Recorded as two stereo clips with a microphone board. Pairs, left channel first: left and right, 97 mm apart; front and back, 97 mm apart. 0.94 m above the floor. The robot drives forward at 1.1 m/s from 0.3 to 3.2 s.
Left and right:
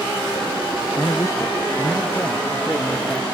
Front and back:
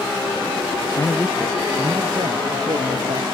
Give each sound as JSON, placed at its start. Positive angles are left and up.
{"t": 1.0, "sound": "a man speaking", "azimuth_deg": 45, "distance_m": 0.7}